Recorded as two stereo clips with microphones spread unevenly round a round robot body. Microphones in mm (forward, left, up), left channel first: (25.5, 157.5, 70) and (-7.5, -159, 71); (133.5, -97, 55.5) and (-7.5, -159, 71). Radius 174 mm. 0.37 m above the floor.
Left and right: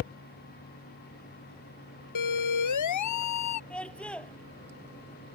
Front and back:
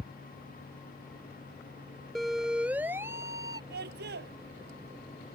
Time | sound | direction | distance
2.1 | a siren | 115° left | ?
3.7 | a scream | 170° left | ?